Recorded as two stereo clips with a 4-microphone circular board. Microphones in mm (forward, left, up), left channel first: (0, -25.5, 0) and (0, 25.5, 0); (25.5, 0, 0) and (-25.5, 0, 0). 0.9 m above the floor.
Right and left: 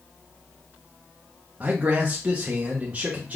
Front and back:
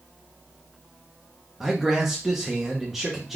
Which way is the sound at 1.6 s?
95° left.